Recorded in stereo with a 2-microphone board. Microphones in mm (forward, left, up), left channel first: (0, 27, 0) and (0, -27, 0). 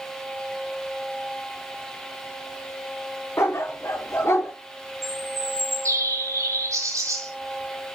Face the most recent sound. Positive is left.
turn(degrees=-65)  # may be behind; listen again after turning